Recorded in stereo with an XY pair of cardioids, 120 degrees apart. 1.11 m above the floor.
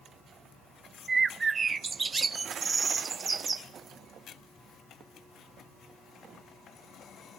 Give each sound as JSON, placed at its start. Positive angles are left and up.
{"t": 1.1, "sound": "a bird", "azimuth_deg": -30, "distance_m": 0.7}